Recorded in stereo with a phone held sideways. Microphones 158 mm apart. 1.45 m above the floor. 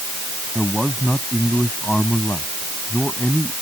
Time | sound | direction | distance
0.6 | a man speaking | centre (ahead or behind) | ?